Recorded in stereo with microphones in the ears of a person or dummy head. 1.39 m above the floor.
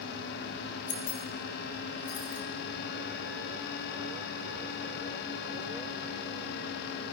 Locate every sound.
0.9 s keys jangling: 70° left (ahead or behind), 1.4 m